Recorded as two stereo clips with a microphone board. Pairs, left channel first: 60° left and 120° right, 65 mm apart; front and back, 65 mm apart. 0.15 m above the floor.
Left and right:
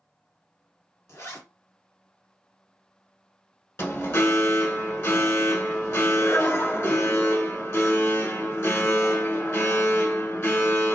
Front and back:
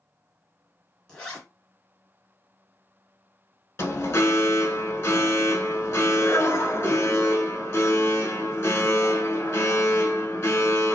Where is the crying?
I don't hear crying.